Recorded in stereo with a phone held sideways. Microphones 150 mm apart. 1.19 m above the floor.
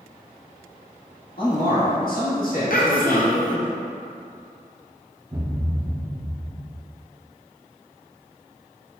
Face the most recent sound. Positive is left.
turn(degrees=-25)  # may be behind; listen again after turning